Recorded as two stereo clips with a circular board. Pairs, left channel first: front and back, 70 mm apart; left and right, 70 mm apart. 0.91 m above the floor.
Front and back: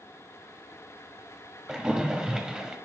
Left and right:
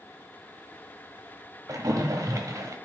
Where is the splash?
105° right, 1.0 m.